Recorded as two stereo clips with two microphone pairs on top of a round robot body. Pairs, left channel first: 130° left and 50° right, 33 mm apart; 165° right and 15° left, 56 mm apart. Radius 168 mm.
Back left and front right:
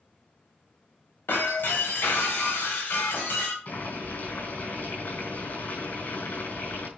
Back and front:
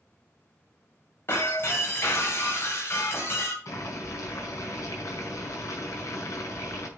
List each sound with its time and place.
1.3 s breaking glass: 145° left, 2.5 m
3.6 s boiling: 165° left, 4.5 m